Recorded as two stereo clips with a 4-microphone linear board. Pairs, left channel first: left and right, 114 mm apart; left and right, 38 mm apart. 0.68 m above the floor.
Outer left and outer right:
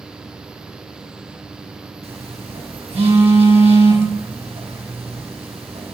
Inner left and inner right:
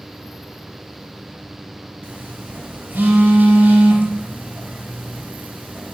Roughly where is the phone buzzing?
Right.